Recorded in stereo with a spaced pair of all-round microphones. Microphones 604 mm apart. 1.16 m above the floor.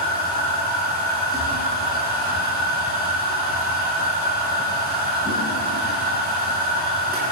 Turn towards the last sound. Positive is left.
turn(degrees=-15)  # may be behind; listen again after turning